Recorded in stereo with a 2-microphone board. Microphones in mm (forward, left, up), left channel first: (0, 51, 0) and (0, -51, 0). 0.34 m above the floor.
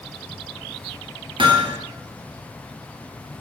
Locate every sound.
1.4 s hammering: 60° right (ahead or behind), 1.3 m